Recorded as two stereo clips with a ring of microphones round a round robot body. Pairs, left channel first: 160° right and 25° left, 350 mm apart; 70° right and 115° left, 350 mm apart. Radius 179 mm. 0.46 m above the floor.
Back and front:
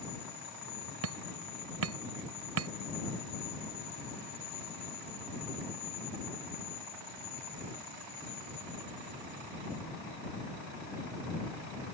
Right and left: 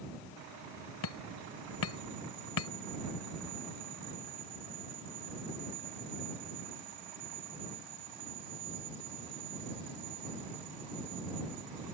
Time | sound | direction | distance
1.0 | hammering | 25° right | ?